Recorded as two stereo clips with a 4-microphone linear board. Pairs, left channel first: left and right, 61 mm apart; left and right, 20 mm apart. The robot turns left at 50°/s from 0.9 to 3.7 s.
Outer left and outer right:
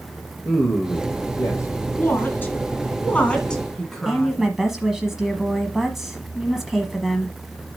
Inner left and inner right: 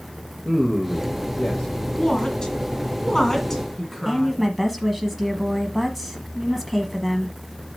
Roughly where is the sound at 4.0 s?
Centre.